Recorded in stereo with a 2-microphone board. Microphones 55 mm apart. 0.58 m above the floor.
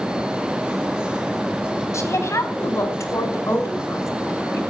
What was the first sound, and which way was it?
A woman speaking, 65° left (ahead or behind).